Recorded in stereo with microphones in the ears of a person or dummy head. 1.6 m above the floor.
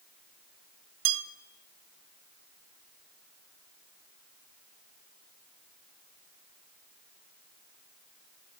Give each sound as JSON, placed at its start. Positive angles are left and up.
{"t": 1.1, "sound": "a bell", "side_deg": -80, "distance_m": 1.0}